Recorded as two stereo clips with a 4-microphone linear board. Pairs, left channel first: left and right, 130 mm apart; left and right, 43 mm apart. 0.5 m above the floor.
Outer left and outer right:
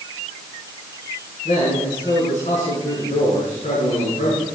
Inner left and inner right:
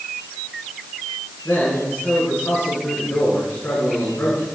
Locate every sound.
1.4 s a man speaking: 60° left (ahead or behind), 7 m